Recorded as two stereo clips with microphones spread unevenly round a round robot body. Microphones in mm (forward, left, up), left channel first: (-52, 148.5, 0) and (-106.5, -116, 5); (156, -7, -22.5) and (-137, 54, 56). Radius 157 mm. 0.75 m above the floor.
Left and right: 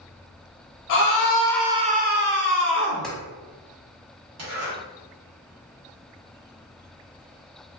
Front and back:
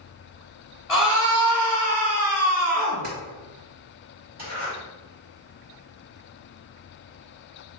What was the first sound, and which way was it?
A scream, 80° left.